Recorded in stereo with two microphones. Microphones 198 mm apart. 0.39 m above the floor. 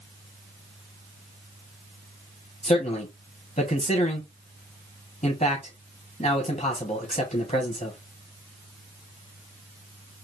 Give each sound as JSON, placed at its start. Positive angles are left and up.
{"t": 2.6, "sound": "a man speaking", "side_deg": 35, "distance_m": 3.5}